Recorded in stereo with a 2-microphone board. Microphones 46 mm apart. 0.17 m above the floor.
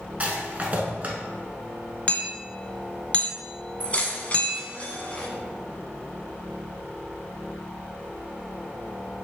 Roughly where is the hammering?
Left.